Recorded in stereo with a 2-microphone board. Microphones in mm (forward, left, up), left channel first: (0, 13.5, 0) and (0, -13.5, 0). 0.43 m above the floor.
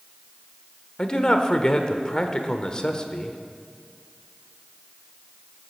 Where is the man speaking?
30° left (ahead or behind), 1.2 m.